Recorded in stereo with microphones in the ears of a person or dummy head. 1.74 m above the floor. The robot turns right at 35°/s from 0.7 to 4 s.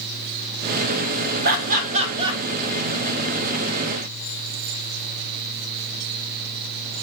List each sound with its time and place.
1.4 s laughter: 55° right (ahead or behind), 0.6 m; by 2.4 s 20° right (ahead or behind), 0.6 m